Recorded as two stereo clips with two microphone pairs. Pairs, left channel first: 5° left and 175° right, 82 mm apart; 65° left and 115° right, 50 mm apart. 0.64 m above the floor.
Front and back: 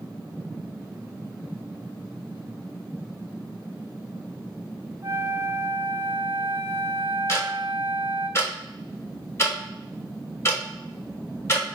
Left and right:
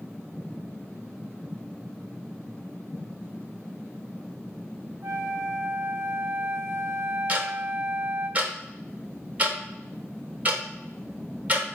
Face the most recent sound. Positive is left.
turn(degrees=-55)